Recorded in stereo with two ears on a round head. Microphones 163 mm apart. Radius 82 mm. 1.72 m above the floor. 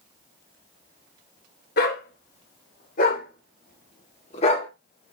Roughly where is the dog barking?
Left.